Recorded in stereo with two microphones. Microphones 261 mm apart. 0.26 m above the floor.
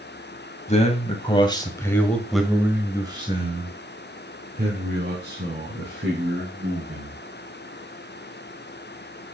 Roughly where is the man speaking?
Left.